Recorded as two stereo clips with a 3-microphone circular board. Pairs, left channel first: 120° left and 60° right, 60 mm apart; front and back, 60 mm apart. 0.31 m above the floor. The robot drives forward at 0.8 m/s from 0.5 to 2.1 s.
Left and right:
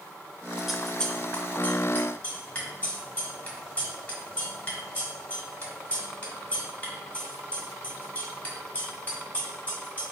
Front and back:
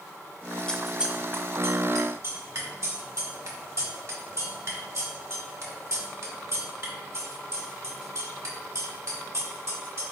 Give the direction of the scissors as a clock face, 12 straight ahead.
12 o'clock.